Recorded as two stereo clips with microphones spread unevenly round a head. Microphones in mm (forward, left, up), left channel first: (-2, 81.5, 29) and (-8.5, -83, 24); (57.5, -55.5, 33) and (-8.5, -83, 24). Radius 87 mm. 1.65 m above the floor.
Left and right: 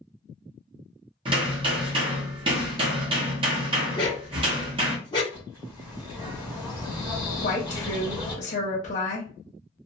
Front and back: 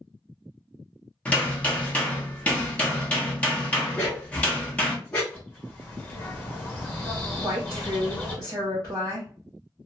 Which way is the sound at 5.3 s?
25° right.